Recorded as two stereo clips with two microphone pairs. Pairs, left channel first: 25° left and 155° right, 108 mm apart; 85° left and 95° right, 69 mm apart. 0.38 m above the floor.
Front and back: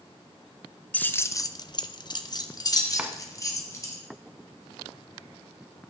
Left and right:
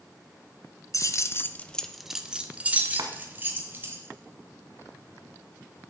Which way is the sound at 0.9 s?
95° left.